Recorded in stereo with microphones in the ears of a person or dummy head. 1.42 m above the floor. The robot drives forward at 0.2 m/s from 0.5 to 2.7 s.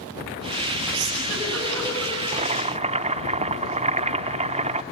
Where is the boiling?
35° right (ahead or behind), 0.6 m; by 4.8 s 30° right (ahead or behind), 0.7 m.